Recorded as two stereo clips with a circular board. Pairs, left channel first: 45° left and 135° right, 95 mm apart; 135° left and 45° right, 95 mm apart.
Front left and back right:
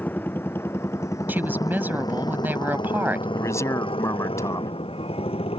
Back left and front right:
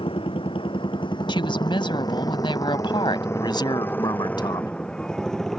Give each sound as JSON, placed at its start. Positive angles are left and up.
{"t": 0.0, "sound": "a motorcycle", "azimuth_deg": 115}
{"t": 1.3, "sound": "a woman speaking", "azimuth_deg": 155}
{"t": 3.4, "sound": "a man speaking", "azimuth_deg": 100}